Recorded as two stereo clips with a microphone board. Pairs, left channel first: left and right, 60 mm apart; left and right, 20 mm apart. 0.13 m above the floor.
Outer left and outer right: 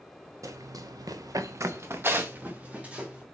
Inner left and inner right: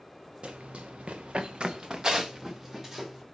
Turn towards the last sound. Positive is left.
turn(degrees=-20)  # may be behind; listen again after turning